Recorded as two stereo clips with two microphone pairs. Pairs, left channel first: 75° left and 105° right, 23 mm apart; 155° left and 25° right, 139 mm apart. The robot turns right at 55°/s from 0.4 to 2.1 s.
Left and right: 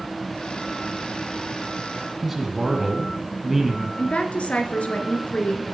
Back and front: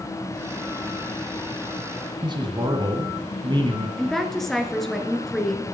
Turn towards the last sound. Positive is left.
turn(degrees=70)